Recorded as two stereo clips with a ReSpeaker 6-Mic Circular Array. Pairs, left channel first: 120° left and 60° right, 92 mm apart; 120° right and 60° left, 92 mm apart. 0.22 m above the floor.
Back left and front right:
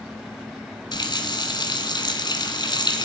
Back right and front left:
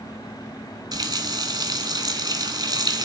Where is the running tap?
90° left, 1.4 m.